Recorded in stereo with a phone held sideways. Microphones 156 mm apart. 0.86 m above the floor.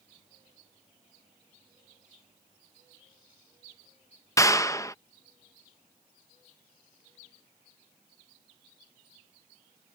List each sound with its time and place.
4.4 s a clap: 20° left (ahead or behind)